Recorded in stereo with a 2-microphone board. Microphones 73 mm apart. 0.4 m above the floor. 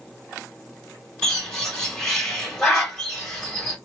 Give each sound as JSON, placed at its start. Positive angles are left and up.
{"t": 1.2, "sound": "a bird", "side_deg": 10, "distance_m": 2.0}